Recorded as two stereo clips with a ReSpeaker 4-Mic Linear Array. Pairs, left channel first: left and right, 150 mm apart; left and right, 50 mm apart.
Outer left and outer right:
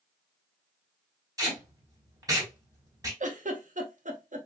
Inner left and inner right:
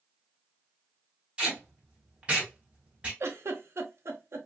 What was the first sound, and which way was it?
Tape being pulled, 25° right (ahead or behind).